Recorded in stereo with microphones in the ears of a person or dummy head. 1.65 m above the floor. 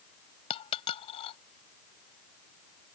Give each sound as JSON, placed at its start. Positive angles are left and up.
{"t": 0.5, "sound": "a dropped coin", "side_deg": 30}